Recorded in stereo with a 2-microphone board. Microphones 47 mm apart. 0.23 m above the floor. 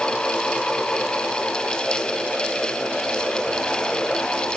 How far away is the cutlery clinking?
No cutlery clinking in this recording.